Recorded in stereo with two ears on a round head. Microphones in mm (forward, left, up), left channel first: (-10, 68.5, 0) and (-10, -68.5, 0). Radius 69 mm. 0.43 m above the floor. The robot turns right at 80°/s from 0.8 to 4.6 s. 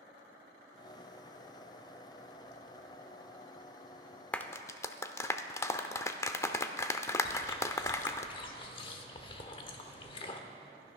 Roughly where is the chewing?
Left.